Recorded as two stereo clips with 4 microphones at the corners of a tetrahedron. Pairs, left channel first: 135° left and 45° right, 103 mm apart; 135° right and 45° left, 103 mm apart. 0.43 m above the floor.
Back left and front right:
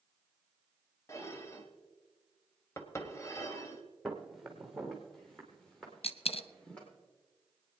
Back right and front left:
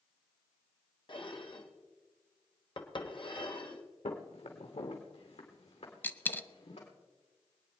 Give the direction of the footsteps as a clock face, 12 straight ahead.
4 o'clock.